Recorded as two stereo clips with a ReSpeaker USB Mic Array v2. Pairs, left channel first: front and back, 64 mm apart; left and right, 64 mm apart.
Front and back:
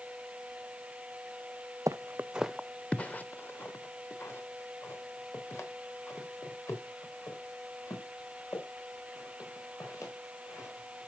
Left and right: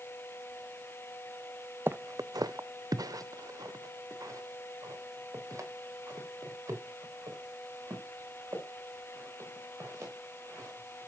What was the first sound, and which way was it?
Footsteps, 150° right.